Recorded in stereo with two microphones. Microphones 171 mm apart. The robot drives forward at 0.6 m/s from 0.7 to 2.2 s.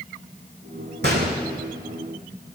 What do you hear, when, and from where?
1.0 s a gunshot: 80° right, 2 m; by 1.4 s 75° right (ahead or behind), 2 m